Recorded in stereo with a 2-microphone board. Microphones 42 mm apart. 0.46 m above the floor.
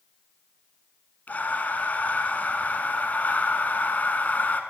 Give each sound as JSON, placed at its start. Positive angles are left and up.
{"t": 1.3, "sound": "breathing", "side_deg": 40, "distance_m": 1.1}